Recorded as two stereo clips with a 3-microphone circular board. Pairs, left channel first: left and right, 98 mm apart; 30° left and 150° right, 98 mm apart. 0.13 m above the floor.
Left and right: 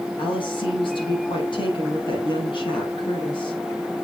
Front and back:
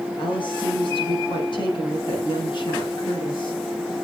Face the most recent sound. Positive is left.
turn(degrees=60)